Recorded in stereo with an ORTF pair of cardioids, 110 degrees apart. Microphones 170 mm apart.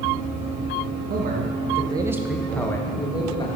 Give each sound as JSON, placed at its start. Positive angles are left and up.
{"t": 1.1, "sound": "a man speaking", "azimuth_deg": -65, "distance_m": 1.5}